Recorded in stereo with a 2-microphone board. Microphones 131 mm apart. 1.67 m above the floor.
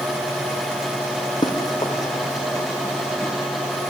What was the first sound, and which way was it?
Running footsteps, 35° left (ahead or behind).